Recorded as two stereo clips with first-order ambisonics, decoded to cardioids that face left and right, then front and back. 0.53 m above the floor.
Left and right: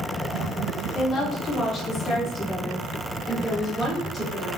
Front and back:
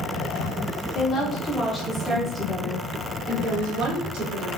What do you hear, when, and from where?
0.9 s a woman speaking: 45° left, 1.2 m; by 4.5 s 175° left, 1.5 m